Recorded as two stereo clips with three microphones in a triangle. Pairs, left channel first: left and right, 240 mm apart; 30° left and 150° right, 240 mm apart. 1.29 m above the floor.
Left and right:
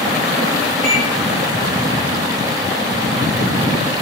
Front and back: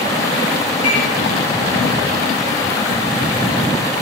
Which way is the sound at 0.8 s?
10° left.